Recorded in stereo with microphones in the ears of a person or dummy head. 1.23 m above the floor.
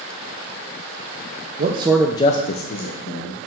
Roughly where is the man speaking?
Right.